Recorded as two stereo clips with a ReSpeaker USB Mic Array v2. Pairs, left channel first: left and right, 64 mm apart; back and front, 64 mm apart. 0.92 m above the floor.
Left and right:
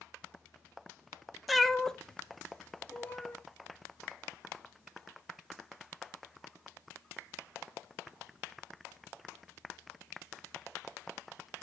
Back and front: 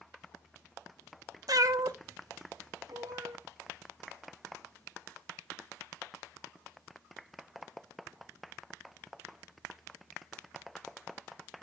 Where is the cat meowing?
Straight ahead, 0.5 m; by 3.4 s 25° left, 1.4 m.